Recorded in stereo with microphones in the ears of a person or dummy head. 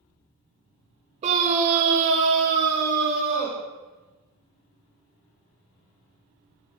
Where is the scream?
35° right (ahead or behind), 0.8 m; by 3.6 s 50° right (ahead or behind), 1.0 m.